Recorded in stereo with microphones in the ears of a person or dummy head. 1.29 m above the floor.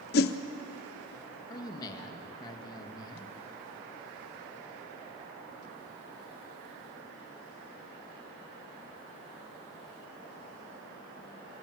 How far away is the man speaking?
About 1.7 m.